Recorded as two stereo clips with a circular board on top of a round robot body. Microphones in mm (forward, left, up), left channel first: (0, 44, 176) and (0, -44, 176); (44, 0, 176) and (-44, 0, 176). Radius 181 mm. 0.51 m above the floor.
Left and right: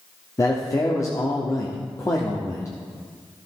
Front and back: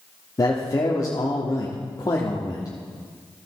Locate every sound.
0.4 s a man speaking: 40° left, 1.3 m